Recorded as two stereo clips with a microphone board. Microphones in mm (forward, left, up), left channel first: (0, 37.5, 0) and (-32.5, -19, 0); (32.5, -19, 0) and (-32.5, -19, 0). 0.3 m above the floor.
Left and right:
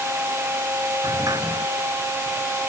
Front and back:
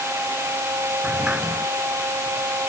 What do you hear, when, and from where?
1.0 s a sliding door: 105° right